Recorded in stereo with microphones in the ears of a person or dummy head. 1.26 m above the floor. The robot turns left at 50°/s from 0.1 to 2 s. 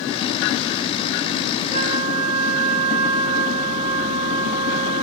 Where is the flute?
45° right (ahead or behind), 0.9 m; by 5.0 s 30° right (ahead or behind), 0.9 m.